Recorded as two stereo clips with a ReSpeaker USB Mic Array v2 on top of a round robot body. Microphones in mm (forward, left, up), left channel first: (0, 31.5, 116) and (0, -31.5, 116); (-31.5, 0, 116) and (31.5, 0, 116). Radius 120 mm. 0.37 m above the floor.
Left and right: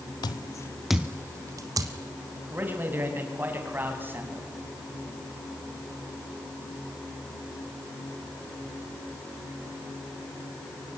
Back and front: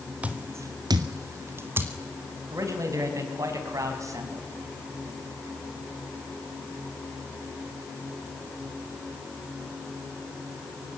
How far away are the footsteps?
About 0.8 m.